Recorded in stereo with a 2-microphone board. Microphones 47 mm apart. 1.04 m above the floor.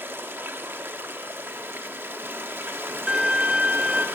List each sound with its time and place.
0.0 s running water: 50° right (ahead or behind), 0.9 m
3.1 s a violin: 20° right (ahead or behind), 0.8 m